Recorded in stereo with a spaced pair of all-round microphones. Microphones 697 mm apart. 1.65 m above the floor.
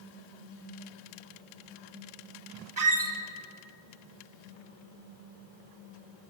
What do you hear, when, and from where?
2.8 s a squeak: 30° right (ahead or behind), 0.8 m